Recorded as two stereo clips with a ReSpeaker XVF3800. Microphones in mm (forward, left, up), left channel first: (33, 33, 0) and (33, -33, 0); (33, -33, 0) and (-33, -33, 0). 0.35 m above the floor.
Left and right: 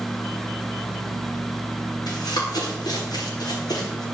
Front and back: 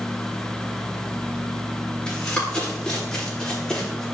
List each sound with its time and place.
2.1 s running footsteps: 75° left, 9.5 m; by 4.0 s 80° left, 9 m